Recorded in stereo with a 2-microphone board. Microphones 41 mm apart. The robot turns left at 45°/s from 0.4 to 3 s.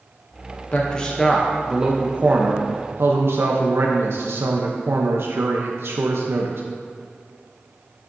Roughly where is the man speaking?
Ahead left.